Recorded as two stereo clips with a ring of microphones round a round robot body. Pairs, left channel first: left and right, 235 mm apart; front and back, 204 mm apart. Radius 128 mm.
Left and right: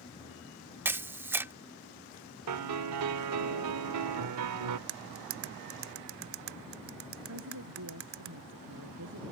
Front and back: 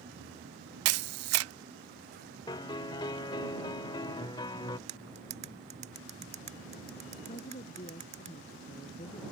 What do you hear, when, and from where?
0.8 s a camera shutter: 170° right
2.5 s a piano: 75° right
4.9 s cutlery clinking: 120° right
7.3 s a woman speaking: 65° right